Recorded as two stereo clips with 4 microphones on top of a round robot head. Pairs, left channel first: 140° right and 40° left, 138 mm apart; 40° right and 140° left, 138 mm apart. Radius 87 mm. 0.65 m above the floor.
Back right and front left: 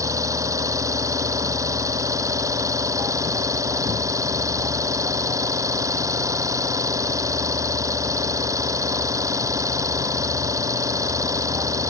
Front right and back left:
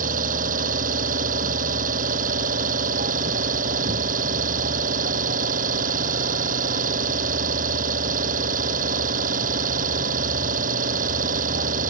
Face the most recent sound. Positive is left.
turn(degrees=110)